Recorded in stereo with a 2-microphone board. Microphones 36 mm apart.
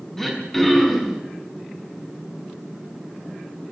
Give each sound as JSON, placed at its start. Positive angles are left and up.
{"t": 0.2, "sound": "throat clearing", "side_deg": 10, "distance_m": 5.5}